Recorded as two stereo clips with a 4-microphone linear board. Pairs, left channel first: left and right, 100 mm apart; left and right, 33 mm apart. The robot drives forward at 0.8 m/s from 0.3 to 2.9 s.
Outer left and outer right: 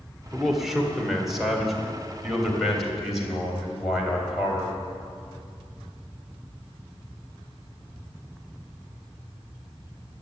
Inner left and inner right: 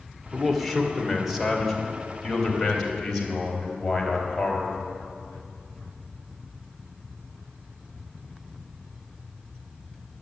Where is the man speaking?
Centre (ahead or behind), 1.9 m.